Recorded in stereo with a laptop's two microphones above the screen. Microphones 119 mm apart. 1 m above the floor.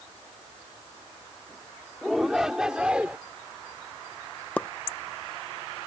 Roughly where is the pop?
Centre.